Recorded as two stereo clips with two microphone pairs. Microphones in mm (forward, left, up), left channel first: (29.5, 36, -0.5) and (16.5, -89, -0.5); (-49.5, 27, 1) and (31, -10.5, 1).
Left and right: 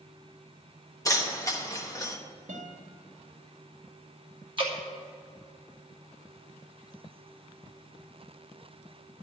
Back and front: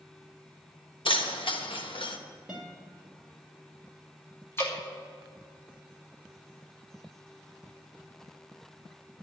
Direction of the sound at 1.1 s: 145° left.